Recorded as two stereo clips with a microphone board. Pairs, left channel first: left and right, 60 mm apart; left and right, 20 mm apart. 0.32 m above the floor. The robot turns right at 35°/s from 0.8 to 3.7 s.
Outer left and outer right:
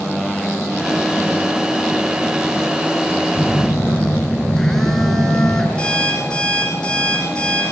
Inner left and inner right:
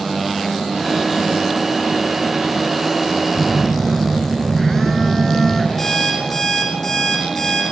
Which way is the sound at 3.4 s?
20° left (ahead or behind).